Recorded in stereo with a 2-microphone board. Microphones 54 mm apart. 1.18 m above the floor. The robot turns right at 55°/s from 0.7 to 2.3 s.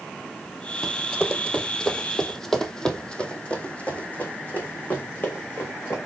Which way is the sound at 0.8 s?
10° left (ahead or behind).